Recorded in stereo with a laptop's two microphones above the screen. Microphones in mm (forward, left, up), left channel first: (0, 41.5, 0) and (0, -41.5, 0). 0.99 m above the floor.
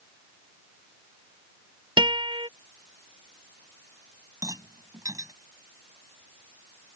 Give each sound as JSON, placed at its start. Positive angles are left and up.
{"t": 2.0, "sound": "a guitar", "side_deg": -80}
{"t": 4.4, "sound": "a rattle", "side_deg": -45}